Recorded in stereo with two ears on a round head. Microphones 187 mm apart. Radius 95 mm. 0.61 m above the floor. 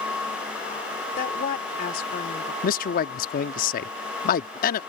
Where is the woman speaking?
40° left (ahead or behind).